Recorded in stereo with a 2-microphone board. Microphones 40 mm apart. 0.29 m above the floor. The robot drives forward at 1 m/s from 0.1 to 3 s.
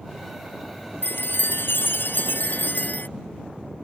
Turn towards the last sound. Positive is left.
turn(degrees=55)  # may be behind; listen again after turning